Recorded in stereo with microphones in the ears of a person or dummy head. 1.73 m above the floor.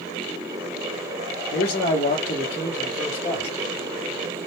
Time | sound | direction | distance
1.5 | a man speaking | 55° left (ahead or behind) | 0.7 m